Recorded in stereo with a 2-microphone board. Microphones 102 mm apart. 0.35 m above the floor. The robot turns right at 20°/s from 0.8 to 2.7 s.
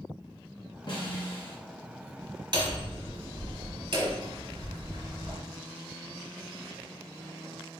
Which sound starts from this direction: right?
Hammering, at 2.5 s.